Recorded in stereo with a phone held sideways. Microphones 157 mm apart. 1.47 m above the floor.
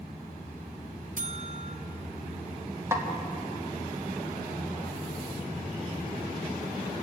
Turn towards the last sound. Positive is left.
turn(degrees=-20)  # may be behind; listen again after turning